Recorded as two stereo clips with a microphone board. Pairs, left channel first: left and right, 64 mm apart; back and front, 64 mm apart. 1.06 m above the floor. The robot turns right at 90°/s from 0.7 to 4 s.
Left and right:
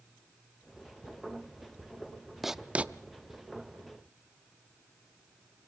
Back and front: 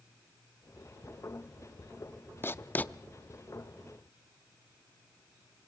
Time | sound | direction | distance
2.4 | writing | 175° right | 0.6 m